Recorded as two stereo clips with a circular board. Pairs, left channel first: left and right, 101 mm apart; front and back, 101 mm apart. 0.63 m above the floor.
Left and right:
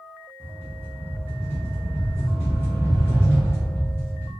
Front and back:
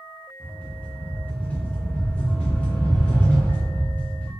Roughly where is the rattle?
Ahead left.